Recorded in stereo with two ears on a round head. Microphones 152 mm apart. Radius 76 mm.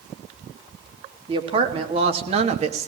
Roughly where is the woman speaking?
Right.